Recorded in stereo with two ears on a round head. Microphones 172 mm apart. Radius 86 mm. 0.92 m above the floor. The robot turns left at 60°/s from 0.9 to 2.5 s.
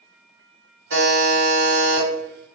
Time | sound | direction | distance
0.9 | a buzzer | 110° right | 1.5 m